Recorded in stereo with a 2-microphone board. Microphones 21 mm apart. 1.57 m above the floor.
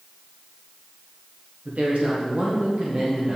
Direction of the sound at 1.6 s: 80° right.